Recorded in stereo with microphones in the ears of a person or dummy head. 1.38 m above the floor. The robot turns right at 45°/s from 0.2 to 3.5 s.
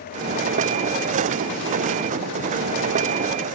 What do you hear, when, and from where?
Only background noise.